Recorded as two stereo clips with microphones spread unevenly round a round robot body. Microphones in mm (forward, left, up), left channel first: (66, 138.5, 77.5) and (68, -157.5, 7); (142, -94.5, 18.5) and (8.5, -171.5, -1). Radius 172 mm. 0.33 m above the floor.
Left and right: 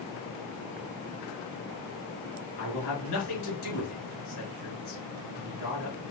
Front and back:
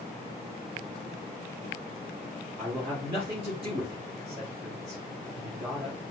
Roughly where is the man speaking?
Behind left.